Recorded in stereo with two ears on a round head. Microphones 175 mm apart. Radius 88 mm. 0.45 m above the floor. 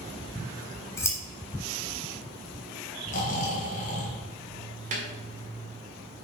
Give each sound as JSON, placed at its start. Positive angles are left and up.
{"t": 0.3, "sound": "scissors", "side_deg": 15, "distance_m": 1.4}
{"t": 3.1, "sound": "snoring", "side_deg": 40, "distance_m": 2.0}
{"t": 4.9, "sound": "a snare drum", "side_deg": -40, "distance_m": 1.9}